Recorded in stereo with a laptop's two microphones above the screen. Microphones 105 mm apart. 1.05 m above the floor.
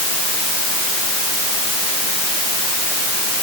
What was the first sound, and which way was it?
Only background noise.